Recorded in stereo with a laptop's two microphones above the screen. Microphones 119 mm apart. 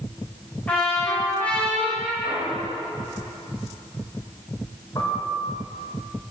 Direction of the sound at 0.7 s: 10° left (ahead or behind).